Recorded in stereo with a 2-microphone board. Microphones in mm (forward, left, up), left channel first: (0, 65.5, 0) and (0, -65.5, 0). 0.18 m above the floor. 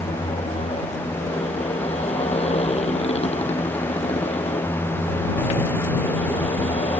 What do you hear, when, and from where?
0.0 s a motorcycle: 60° left (ahead or behind)